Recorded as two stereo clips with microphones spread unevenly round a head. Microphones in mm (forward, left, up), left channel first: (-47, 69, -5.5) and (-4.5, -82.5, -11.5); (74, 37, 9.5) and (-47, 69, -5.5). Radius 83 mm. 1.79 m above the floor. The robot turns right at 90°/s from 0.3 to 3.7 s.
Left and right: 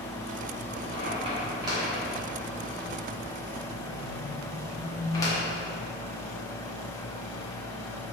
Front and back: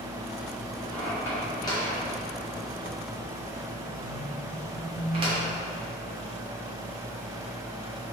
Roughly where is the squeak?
Right.